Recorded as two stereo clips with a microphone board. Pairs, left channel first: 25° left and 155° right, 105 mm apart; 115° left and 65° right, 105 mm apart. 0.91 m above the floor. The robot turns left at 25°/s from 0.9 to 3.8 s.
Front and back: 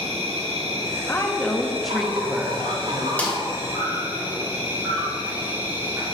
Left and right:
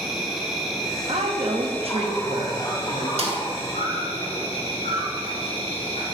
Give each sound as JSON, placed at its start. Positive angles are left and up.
{"t": 0.0, "sound": "an insect", "azimuth_deg": -155, "distance_m": 2.0}
{"t": 1.1, "sound": "a woman speaking", "azimuth_deg": -45, "distance_m": 0.9}
{"t": 3.2, "sound": "a snare drum", "azimuth_deg": -55, "distance_m": 1.3}